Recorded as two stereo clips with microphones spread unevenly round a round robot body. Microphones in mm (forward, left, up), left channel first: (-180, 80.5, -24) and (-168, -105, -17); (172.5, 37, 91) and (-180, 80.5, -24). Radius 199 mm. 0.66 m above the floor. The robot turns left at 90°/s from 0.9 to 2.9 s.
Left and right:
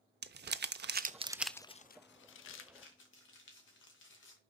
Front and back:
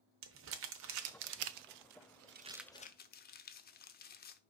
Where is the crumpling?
125° right, 0.6 m; by 4.4 s 55° left, 0.6 m.